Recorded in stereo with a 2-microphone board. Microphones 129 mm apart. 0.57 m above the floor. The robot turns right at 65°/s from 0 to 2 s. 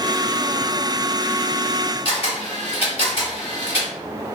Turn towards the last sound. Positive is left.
turn(degrees=50)  # may be behind; listen again after turning